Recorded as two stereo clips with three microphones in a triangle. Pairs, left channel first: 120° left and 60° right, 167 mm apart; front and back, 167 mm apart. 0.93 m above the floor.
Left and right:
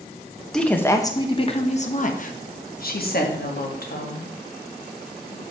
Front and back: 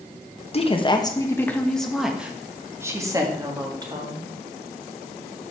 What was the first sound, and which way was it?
A woman speaking, 35° left.